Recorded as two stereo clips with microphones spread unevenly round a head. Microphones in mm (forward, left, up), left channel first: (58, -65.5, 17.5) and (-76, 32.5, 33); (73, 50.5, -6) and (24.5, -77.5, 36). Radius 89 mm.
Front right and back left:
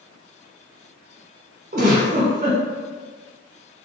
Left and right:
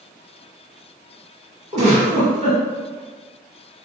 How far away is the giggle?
About 1.2 m.